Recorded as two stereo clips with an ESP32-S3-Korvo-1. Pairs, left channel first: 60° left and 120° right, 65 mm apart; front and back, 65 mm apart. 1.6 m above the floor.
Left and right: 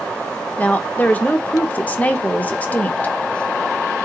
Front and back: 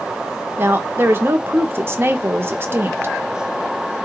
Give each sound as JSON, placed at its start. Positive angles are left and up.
{"t": 0.6, "sound": "a woman speaking", "azimuth_deg": 125, "distance_m": 0.8}